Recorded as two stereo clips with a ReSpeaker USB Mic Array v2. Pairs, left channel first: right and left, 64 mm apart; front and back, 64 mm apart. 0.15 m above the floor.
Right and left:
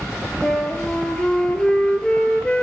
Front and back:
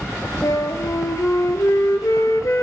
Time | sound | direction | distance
0.4 | a flute | 15° right | 1.0 m